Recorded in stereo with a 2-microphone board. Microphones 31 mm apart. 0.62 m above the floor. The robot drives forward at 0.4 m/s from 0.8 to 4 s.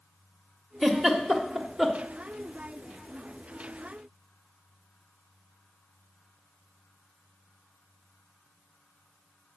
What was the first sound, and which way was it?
A giggle, centre (ahead or behind).